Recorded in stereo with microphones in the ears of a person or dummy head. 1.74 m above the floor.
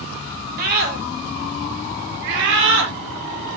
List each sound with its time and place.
0.6 s a scream: 50° right (ahead or behind), 6 m; by 2.9 s 70° right (ahead or behind), 5 m